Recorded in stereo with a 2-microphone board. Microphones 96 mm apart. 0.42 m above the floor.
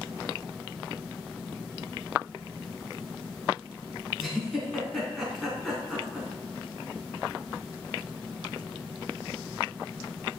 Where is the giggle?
Centre (ahead or behind), 4 m.